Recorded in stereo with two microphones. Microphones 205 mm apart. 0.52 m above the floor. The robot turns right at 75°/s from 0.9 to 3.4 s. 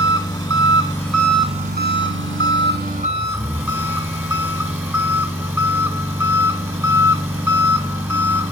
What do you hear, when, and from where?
0.0 s an engine running: 165° left, 2 m; by 8.5 s 10° right, 2 m